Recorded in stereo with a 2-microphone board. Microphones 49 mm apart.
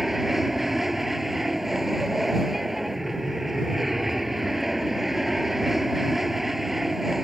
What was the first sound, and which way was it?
An aircraft, 5° right (ahead or behind).